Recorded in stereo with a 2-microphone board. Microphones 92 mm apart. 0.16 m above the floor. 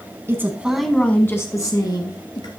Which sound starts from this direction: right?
A woman speaking, at 0.3 s.